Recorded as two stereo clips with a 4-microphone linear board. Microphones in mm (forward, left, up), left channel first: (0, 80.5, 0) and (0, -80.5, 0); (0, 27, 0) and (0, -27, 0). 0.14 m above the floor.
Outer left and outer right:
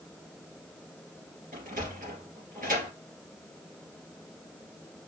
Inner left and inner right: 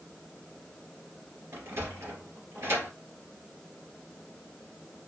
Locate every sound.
1.5 s a sliding door: 60° right (ahead or behind), 2.5 m